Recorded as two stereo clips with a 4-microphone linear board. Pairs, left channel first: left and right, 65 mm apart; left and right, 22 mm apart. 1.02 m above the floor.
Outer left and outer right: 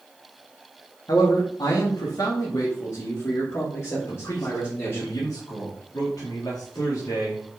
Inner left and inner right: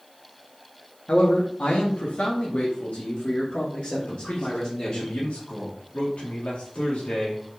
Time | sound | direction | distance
1.1 | a man speaking | 65° left (ahead or behind) | 1.8 m
4.1 | a man speaking | 65° left (ahead or behind) | 2.0 m